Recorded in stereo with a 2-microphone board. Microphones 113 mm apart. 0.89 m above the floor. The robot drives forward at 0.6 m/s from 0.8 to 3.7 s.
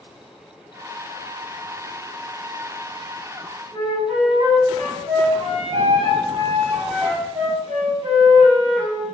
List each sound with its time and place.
3.7 s a flute: 65° right (ahead or behind), 4 m